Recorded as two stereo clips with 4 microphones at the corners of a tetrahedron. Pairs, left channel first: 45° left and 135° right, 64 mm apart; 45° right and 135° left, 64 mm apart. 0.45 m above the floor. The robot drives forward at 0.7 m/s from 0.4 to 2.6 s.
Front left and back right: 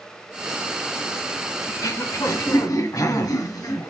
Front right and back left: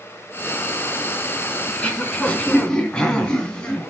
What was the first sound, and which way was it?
Throat clearing, 25° left.